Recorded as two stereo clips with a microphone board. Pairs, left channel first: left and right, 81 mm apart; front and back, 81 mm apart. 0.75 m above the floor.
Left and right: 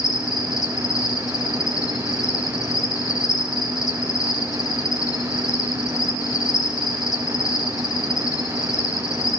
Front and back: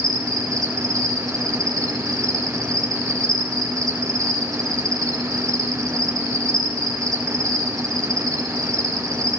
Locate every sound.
0.0 s an insect: 135° left, 3.5 m